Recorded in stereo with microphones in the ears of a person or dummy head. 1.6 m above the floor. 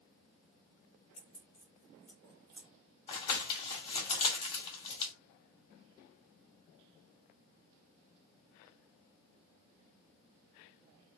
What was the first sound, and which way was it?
Keys jangling, 25° left (ahead or behind).